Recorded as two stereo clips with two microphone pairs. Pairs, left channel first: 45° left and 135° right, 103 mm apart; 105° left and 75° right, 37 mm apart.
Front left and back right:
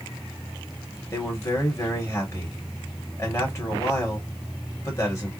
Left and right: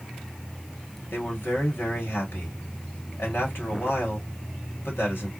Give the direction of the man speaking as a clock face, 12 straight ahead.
9 o'clock.